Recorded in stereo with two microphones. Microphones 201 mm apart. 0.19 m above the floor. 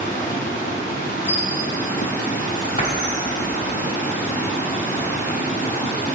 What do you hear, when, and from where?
0.0 s running water: 40° left (ahead or behind), 1.2 m
1.3 s a squeak: 70° right (ahead or behind), 1.3 m
2.8 s a door slam: 45° left (ahead or behind), 1.1 m